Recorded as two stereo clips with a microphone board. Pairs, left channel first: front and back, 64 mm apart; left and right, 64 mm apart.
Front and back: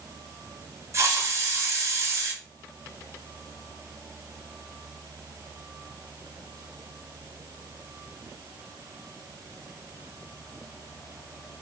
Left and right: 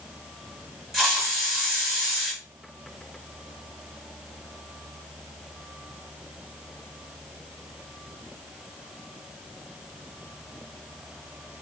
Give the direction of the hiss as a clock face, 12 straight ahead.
6 o'clock.